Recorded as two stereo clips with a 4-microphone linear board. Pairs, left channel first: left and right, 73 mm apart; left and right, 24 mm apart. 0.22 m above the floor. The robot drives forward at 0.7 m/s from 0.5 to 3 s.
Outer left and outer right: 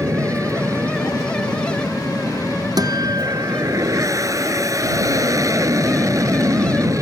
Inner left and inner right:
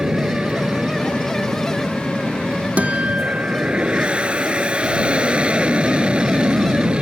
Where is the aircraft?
50° right (ahead or behind).